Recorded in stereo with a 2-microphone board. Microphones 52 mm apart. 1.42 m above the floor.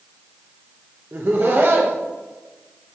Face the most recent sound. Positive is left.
turn(degrees=-45)  # may be behind; listen again after turning